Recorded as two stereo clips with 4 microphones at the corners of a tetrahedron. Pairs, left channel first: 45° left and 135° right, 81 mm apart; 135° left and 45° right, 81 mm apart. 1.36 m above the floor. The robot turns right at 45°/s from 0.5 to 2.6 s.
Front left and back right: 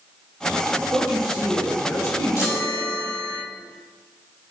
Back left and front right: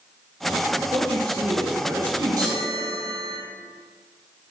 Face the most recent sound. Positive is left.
turn(degrees=5)